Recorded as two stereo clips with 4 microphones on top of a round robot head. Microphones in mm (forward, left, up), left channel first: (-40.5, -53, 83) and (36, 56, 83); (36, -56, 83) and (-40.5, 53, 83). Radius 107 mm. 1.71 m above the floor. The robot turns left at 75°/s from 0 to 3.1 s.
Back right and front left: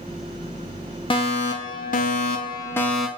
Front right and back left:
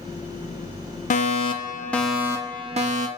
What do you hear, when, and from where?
1.1 s a fire alarm: 75° right, 3.5 m; by 3.1 s 135° left, 3.5 m